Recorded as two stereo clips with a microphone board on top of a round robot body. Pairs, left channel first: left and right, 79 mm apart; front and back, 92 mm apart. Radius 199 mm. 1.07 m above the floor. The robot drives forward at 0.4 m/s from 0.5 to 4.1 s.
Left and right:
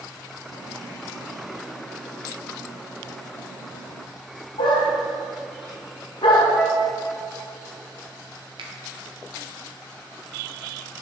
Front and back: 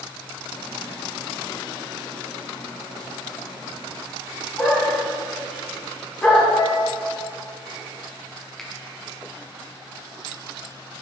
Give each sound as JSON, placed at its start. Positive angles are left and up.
{"t": 4.6, "sound": "a dog barking", "azimuth_deg": 75, "distance_m": 1.1}
{"t": 6.5, "sound": "a flute", "azimuth_deg": 15, "distance_m": 1.3}
{"t": 8.6, "sound": "a finger snap", "azimuth_deg": -85, "distance_m": 1.2}